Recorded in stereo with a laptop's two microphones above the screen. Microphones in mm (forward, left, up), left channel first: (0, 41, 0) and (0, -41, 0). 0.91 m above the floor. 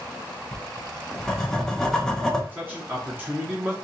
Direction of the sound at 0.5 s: 5° left (ahead or behind).